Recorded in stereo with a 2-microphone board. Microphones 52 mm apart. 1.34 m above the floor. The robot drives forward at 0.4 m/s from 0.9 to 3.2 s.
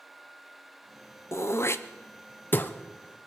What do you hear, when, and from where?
1.3 s throat clearing: 55° left (ahead or behind), 0.6 m; by 2.7 s 35° left (ahead or behind), 0.8 m